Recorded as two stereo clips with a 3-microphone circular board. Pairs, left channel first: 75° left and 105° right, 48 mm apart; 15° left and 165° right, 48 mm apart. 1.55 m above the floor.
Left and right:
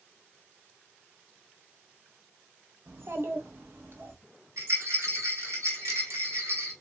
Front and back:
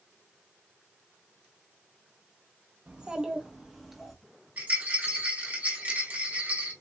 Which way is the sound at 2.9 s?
105° right.